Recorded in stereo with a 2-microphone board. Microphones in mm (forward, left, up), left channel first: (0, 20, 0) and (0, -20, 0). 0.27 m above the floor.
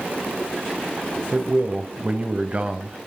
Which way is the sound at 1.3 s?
35° right (ahead or behind).